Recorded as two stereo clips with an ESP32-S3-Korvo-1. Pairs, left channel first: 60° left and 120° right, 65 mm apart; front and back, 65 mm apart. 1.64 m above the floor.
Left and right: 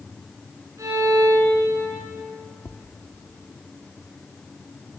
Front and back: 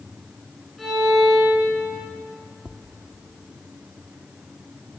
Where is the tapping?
105° left, 1.1 m.